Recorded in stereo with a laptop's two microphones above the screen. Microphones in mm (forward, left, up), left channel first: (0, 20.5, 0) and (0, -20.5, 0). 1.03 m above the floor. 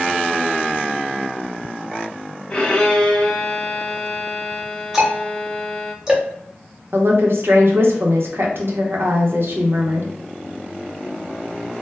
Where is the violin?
20° left (ahead or behind), 0.7 m.